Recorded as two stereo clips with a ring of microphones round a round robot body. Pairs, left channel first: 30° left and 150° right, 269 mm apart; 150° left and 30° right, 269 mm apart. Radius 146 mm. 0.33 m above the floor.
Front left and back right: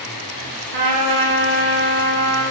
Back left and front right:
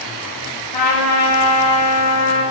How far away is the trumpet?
About 2 m.